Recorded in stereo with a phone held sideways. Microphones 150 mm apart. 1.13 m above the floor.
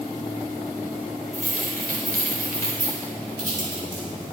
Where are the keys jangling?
75° right (ahead or behind), 4 m.